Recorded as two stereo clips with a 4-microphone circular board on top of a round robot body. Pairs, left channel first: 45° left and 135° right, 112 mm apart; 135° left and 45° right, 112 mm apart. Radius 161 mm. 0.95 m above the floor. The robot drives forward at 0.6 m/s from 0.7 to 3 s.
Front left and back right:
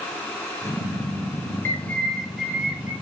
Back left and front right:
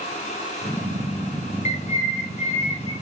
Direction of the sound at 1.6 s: 115° left.